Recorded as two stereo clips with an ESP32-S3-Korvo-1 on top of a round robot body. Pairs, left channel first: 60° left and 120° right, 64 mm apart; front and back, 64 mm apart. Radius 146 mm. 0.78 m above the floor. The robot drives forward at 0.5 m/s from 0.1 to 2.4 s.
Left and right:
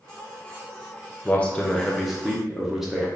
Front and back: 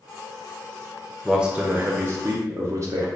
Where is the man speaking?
100° left, 0.6 m; by 3.1 s 155° left, 0.9 m.